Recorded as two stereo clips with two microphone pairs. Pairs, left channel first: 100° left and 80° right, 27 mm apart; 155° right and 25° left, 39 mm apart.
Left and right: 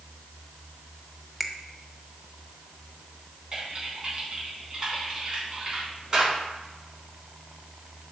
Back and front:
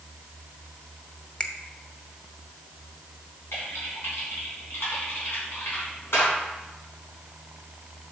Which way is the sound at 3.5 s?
145° right.